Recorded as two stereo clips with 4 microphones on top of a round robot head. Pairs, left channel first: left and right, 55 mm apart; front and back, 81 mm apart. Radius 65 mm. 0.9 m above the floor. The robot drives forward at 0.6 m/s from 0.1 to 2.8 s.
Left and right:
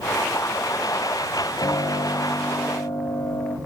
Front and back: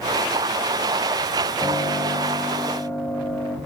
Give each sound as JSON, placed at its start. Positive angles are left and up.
{"t": 1.6, "sound": "a piano", "azimuth_deg": 70, "distance_m": 5.0}